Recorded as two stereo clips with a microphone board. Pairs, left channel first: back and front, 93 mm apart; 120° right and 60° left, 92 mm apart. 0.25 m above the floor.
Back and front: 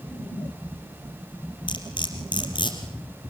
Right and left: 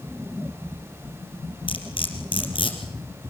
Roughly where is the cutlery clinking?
Behind right.